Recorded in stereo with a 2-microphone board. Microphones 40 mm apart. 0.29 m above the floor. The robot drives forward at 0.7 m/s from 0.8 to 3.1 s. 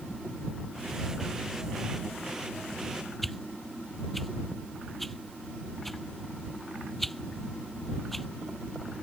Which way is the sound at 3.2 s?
5° left (ahead or behind).